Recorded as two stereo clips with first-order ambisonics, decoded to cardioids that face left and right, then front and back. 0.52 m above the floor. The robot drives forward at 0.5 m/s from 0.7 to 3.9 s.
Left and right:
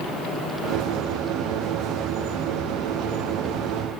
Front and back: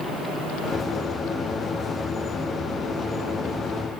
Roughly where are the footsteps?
I don't hear footsteps.